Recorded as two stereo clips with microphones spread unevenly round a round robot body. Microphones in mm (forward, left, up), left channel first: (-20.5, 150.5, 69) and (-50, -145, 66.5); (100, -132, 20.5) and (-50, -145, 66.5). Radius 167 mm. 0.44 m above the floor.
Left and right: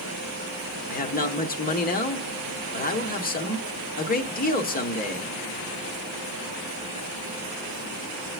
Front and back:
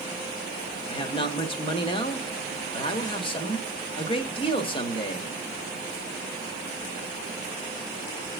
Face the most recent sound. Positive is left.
turn(degrees=30)